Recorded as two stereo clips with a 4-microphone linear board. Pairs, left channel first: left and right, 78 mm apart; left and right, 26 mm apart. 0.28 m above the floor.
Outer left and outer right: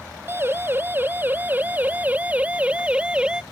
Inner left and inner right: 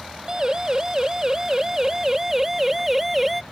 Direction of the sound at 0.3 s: 30° right (ahead or behind).